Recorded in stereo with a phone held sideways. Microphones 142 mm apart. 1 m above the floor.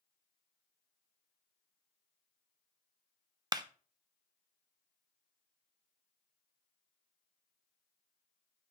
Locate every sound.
3.5 s a clap: 30° right (ahead or behind), 0.5 m